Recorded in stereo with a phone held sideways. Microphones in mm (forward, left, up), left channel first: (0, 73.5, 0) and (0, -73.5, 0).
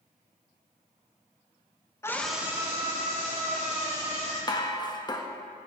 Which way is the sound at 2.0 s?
20° left (ahead or behind).